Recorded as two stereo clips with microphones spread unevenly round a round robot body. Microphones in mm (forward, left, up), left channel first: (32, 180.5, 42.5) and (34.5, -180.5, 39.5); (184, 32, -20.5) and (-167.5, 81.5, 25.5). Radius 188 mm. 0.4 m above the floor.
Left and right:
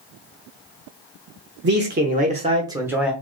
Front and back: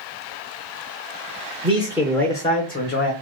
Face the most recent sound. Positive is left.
turn(degrees=-5)